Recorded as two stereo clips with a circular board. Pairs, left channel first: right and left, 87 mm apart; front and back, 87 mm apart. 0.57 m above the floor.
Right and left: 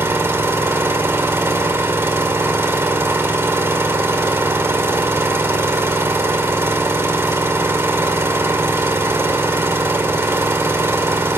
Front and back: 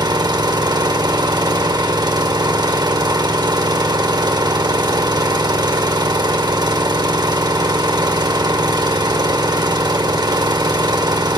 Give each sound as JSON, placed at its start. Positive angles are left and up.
{"t": 0.0, "sound": "an engine running", "azimuth_deg": 150, "distance_m": 1.0}